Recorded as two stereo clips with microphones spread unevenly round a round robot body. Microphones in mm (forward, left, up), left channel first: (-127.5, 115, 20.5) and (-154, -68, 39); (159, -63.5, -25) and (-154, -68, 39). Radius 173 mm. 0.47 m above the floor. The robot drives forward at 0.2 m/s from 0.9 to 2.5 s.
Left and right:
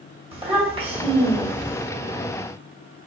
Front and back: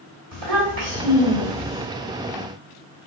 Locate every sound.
0.3 s a child speaking: 160° right, 1.8 m